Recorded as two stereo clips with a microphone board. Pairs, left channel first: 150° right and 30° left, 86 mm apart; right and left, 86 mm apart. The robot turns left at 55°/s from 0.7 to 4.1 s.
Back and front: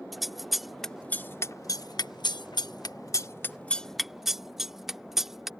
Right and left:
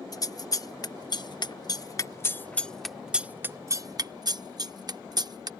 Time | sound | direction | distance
0.1 | scissors | 60° right | ?